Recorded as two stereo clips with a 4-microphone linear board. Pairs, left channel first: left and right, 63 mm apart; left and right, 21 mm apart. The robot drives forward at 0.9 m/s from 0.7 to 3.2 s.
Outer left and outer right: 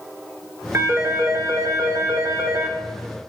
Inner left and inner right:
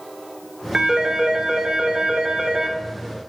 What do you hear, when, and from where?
0.7 s a phone ringing: 40° right (ahead or behind), 1.8 m; by 2.8 s 45° right (ahead or behind), 1.6 m